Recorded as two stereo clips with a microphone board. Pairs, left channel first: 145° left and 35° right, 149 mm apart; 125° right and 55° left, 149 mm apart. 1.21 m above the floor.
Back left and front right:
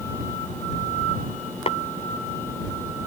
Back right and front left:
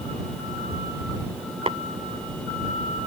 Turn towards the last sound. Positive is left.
turn(degrees=105)